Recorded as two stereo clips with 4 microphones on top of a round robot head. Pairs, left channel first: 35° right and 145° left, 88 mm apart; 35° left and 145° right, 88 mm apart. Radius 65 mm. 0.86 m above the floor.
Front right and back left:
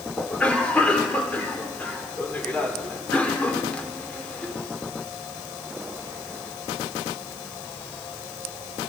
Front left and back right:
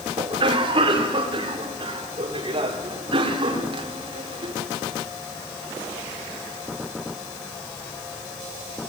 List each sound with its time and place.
0.2 s a cough: 110° right, 3 m